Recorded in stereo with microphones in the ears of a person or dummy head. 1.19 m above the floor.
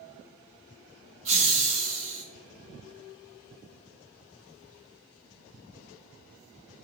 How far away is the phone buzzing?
No phone buzzing in this recording.